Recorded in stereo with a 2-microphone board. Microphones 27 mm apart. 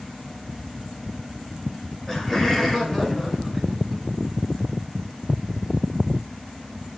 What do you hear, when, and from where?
2.1 s laughter: 10° left (ahead or behind), 6 m; by 4.0 s 5° right (ahead or behind), 4 m